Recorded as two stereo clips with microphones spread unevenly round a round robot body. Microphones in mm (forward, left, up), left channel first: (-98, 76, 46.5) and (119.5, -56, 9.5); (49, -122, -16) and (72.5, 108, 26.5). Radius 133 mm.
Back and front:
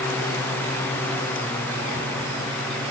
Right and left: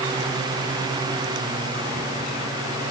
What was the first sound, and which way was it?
Only background noise.